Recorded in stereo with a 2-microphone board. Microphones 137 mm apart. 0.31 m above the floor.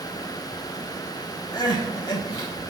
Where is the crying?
35° left (ahead or behind), 1.0 m.